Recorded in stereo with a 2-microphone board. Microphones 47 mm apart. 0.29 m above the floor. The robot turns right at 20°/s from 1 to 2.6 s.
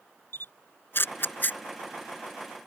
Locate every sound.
0.3 s a camera shutter: 50° left (ahead or behind); by 1.6 s 40° left (ahead or behind)